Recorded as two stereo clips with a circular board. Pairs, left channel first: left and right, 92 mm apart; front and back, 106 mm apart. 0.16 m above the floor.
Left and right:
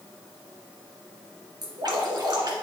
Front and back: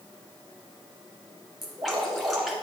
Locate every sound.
1.6 s dripping: 95° right, 2 m